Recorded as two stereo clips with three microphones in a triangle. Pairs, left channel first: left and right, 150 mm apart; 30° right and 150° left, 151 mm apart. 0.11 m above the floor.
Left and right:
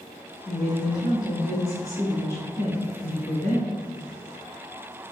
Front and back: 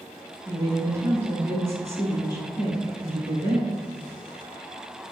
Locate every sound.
0.5 s a woman speaking: 110° left, 1.2 m